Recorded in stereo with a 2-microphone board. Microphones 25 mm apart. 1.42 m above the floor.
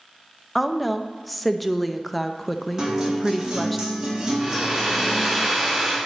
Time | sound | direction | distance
0.6 | a woman speaking | 5° left (ahead or behind) | 0.5 m
2.8 | a guitar | 25° right (ahead or behind) | 2 m
4.4 | a hair dryer | 10° right (ahead or behind) | 4 m